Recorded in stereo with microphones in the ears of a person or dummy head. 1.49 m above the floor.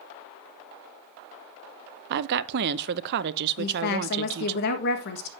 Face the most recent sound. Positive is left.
turn(degrees=60)  # may be behind; listen again after turning